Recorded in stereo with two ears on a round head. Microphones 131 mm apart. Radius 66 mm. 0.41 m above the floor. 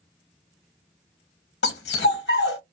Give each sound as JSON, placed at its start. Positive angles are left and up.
{"t": 1.6, "sound": "a dog barking", "side_deg": 85, "distance_m": 0.8}